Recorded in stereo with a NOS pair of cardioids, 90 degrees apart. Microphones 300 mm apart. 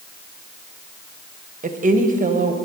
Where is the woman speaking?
25° right, 1.2 m.